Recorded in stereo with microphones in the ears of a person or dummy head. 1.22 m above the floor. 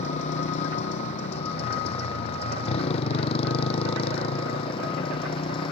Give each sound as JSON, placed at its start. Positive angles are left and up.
{"t": 0.0, "sound": "a motorcycle", "side_deg": 40}